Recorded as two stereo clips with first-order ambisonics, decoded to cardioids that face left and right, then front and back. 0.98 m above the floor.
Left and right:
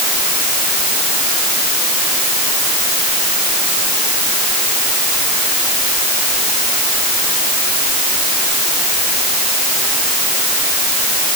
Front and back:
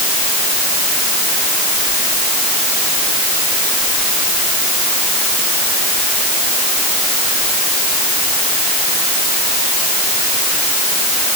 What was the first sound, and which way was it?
Only background noise.